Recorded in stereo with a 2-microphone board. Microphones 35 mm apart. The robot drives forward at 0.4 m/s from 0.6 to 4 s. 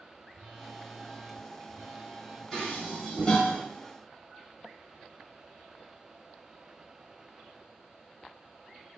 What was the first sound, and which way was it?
A phone buzzing, 10° right (ahead or behind).